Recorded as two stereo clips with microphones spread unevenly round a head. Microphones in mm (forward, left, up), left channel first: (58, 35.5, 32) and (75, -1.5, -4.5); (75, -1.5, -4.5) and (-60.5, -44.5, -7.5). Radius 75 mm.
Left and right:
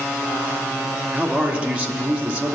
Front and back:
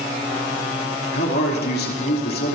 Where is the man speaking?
Straight ahead, 3 m.